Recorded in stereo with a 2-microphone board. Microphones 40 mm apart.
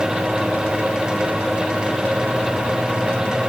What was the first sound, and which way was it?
Only background noise.